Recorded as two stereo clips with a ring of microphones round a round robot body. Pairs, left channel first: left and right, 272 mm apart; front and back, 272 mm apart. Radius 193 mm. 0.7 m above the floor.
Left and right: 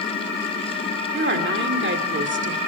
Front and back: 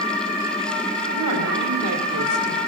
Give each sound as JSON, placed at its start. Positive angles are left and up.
{"t": 1.1, "sound": "a woman speaking", "azimuth_deg": -135, "distance_m": 2.5}